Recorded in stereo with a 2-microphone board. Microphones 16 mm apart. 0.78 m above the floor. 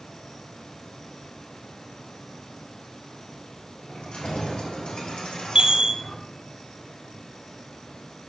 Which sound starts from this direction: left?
Keys jangling, at 3.9 s.